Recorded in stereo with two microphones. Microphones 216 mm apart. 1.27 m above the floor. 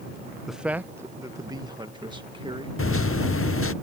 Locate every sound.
0.5 s a man speaking: centre (ahead or behind); by 2.7 s 25° right (ahead or behind)
2.8 s a microwave: 80° left